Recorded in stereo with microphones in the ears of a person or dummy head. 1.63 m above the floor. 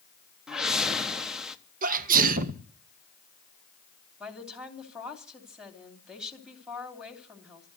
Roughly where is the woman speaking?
Centre.